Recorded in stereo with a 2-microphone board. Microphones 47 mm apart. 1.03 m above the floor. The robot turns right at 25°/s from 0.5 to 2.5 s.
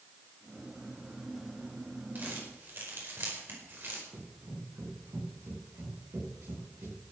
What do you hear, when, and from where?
2.1 s crumpling: 40° right (ahead or behind), 5 m; by 4.0 s 45° right (ahead or behind), 5 m
4.1 s running footsteps: 65° right (ahead or behind), 9.5 m; by 7.0 s 75° right (ahead or behind), 10.5 m